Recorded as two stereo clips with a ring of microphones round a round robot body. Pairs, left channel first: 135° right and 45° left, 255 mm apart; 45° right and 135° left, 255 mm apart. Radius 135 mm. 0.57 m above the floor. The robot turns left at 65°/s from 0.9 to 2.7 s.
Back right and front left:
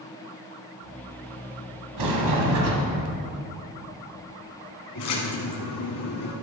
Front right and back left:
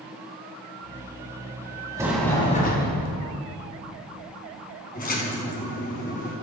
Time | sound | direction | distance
2.0 | a sliding door | 60° left | 2 m
5.0 | a splash | 105° right | 2.5 m